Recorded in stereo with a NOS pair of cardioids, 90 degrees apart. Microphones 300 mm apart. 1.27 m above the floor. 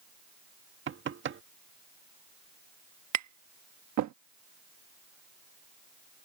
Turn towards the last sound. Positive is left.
turn(degrees=-65)